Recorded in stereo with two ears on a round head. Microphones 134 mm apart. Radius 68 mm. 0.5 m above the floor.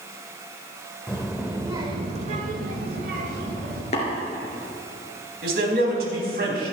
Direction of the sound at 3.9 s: 40° left (ahead or behind).